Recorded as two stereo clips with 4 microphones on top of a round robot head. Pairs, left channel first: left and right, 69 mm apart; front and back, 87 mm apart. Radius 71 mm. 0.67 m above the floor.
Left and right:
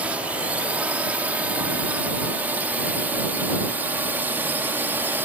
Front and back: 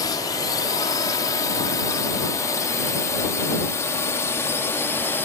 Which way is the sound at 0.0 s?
25° right.